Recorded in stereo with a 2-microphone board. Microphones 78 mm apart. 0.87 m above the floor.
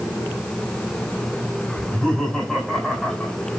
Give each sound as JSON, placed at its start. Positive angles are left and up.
{"t": 1.8, "sound": "laughter", "side_deg": -5, "distance_m": 3.5}